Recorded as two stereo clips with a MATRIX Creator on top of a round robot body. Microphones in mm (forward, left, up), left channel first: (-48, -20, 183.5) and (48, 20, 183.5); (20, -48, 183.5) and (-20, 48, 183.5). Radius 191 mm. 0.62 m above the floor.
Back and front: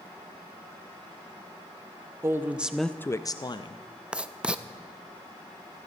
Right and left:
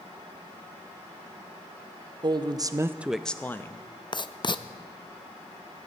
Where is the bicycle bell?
I don't hear a bicycle bell.